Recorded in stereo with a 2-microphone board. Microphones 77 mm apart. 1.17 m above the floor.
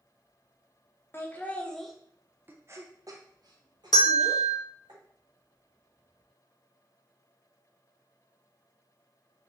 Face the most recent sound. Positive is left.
turn(degrees=65)  # may be behind; listen again after turning